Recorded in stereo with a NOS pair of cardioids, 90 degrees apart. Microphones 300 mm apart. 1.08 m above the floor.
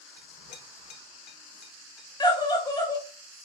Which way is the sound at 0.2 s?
70° left.